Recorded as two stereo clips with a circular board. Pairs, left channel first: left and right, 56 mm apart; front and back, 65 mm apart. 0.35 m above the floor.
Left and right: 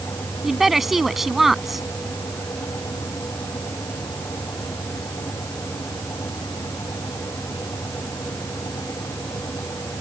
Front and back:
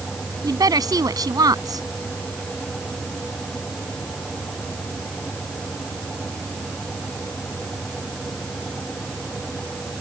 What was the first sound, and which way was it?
A woman speaking, straight behind.